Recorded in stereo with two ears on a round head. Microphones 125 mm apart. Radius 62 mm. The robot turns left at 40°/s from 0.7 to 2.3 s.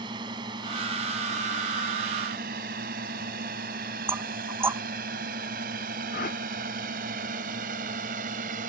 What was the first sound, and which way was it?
A drone, 35° right (ahead or behind).